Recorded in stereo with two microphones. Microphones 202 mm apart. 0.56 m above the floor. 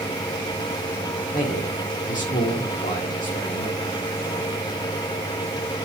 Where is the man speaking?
40° left (ahead or behind), 1.3 m.